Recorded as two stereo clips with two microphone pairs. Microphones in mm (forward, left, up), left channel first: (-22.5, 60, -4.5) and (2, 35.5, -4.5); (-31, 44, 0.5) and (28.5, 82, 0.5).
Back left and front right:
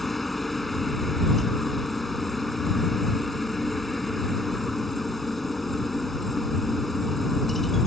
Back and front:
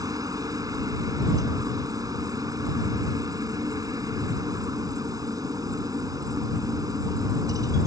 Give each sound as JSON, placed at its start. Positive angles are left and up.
{"t": 0.0, "sound": "a helicopter", "azimuth_deg": 50}